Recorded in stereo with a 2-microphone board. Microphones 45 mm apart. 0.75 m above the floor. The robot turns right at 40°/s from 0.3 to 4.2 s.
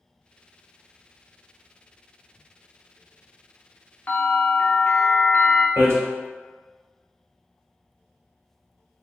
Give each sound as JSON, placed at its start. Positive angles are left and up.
{"t": 4.1, "sound": "a bell", "side_deg": 45, "distance_m": 0.7}
{"t": 5.8, "sound": "hammering", "side_deg": -90, "distance_m": 1.1}